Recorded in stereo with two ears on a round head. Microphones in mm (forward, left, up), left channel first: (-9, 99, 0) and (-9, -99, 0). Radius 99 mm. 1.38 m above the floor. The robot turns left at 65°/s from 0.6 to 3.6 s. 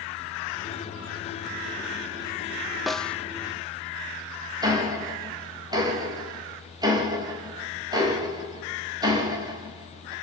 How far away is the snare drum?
About 0.5 m.